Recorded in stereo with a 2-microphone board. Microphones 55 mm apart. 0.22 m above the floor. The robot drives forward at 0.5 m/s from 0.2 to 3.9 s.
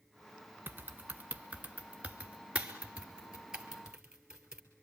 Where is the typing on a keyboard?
40° right (ahead or behind), 1.1 m; by 4.6 s 15° right (ahead or behind), 2.5 m.